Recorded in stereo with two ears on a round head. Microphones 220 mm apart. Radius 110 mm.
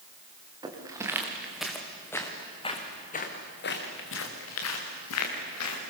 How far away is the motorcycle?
No motorcycle in this recording.